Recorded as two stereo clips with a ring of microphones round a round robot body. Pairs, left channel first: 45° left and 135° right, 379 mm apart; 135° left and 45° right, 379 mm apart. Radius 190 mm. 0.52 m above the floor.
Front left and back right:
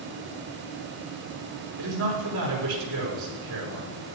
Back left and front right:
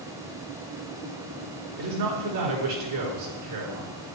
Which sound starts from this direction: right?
A man speaking, at 1.8 s.